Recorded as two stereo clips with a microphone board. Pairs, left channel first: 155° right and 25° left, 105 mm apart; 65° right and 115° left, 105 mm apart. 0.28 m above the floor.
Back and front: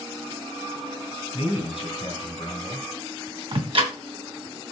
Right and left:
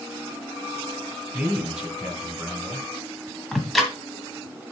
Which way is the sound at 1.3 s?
165° right.